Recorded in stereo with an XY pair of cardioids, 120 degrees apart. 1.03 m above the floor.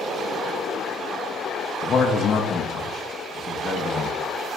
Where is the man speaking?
40° left, 0.8 m.